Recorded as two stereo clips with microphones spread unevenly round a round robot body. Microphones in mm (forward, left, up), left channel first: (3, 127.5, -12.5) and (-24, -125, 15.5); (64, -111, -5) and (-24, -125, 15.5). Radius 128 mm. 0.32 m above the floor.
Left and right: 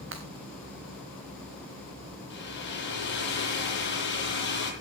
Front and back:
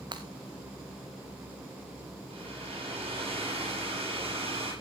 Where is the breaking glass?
140° right, 2.5 m.